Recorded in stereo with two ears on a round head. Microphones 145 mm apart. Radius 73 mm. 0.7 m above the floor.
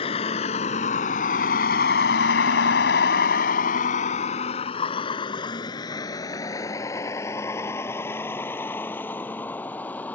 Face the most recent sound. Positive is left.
turn(degrees=10)  # may be behind; listen again after turning